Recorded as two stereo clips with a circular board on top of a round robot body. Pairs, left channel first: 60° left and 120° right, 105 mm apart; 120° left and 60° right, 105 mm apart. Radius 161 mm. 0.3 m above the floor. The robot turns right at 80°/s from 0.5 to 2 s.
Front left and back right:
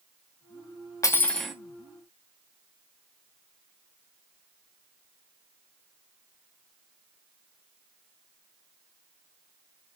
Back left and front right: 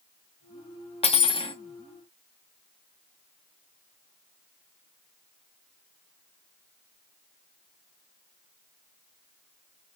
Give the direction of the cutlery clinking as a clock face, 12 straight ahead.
8 o'clock.